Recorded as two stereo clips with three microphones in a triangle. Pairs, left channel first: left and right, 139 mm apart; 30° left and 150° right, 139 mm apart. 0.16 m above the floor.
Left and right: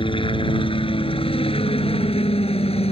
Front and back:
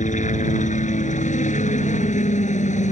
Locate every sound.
0.0 s a helicopter: 45° left; by 2.9 s 50° left